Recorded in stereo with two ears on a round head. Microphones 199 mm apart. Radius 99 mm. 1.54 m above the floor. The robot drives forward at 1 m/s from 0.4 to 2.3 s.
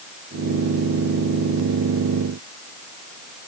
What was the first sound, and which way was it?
Only background noise.